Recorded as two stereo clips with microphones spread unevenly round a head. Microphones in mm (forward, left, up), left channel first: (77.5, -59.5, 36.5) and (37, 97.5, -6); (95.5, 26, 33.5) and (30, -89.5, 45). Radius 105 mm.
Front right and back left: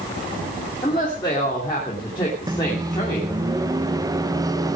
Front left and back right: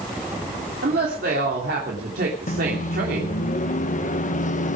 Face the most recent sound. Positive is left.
turn(degrees=35)